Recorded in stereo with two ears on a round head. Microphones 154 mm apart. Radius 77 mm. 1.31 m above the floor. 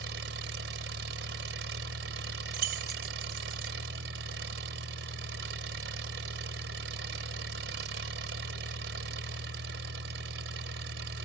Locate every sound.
0.0 s an engine running: 75° right (ahead or behind)
2.5 s keys jangling: 55° right (ahead or behind)